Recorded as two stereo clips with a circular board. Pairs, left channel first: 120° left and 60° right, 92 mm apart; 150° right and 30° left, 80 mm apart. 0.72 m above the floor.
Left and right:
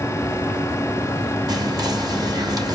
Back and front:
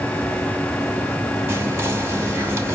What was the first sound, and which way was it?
Whispering, 25° right.